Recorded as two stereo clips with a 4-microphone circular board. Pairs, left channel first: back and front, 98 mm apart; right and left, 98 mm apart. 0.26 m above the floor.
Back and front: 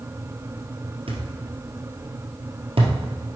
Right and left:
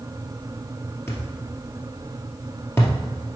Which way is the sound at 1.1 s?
25° right.